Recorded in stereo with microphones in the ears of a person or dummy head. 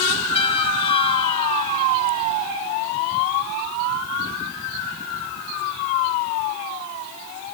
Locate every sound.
0.3 s a trumpet: 30° left (ahead or behind), 1.7 m